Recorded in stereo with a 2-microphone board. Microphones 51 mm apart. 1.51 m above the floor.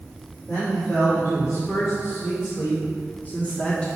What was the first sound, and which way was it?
A man speaking, 70° left (ahead or behind).